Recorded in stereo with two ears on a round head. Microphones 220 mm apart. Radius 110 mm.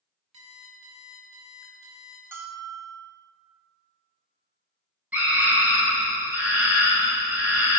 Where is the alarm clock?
60° right (ahead or behind), 3.5 m.